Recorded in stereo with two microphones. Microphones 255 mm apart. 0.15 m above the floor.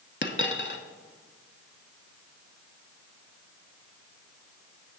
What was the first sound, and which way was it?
A dropped coin, 45° left (ahead or behind).